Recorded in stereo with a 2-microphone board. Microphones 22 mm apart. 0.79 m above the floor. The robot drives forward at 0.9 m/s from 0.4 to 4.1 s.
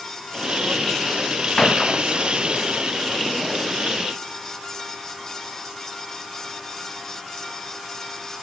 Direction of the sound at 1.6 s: 25° left (ahead or behind).